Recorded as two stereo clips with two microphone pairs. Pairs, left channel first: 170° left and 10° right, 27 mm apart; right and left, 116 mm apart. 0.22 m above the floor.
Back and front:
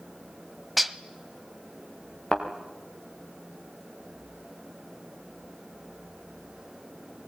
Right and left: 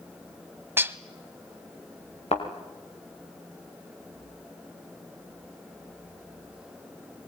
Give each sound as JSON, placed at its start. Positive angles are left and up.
{"t": 0.8, "sound": "dishes clattering", "azimuth_deg": 65, "distance_m": 0.9}
{"t": 2.3, "sound": "a thud", "azimuth_deg": -115, "distance_m": 5.0}